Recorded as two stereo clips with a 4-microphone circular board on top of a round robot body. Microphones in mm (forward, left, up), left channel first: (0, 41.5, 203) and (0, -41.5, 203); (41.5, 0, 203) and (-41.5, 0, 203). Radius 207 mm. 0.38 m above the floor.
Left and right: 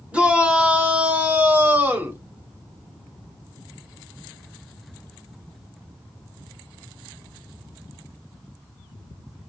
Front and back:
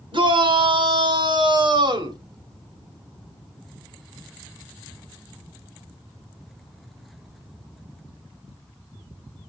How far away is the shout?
About 3 m.